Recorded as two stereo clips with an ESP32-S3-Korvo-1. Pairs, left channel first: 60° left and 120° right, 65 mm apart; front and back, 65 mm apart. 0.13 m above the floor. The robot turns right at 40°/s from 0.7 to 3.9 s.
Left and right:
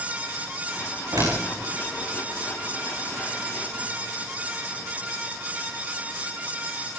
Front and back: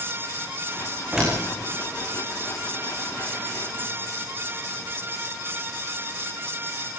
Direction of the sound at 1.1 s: 100° right.